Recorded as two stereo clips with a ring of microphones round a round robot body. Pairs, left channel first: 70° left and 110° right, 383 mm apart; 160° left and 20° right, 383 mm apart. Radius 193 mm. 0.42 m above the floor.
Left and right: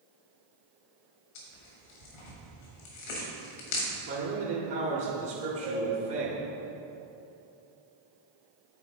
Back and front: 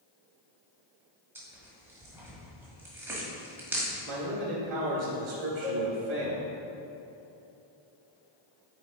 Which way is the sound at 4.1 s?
65° right.